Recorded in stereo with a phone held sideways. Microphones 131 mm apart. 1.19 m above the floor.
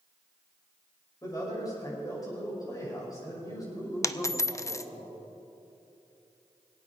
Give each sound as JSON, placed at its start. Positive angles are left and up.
{"t": 1.2, "sound": "a man speaking", "side_deg": 30, "distance_m": 5.5}
{"t": 4.0, "sound": "a dropped coin", "side_deg": 25, "distance_m": 0.5}